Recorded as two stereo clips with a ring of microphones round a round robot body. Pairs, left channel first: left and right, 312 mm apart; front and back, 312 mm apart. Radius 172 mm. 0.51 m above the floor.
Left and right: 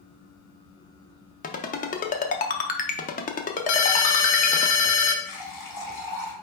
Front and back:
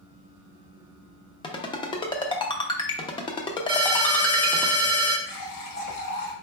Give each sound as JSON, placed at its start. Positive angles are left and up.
{"t": 1.4, "sound": "a ringtone", "azimuth_deg": 60, "distance_m": 0.5}
{"t": 3.7, "sound": "a ringtone", "azimuth_deg": 105, "distance_m": 0.8}
{"t": 5.2, "sound": "a running tap", "azimuth_deg": 30, "distance_m": 1.6}